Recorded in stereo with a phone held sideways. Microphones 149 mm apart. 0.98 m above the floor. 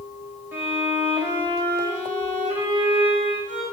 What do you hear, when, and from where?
0.5 s a violin: 15° right (ahead or behind), 6 m